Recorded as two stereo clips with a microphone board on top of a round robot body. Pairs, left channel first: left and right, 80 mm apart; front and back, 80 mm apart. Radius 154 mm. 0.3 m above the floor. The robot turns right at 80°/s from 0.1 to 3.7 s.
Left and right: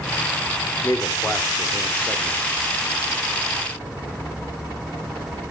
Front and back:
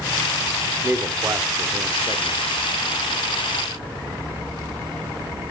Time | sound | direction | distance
0.8 | a man speaking | 110° left | 1.8 m